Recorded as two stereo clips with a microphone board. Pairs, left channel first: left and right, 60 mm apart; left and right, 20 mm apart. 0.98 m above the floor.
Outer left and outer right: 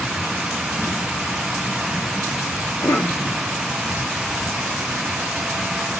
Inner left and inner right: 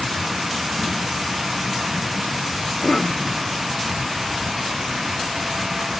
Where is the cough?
50° left (ahead or behind), 0.8 m.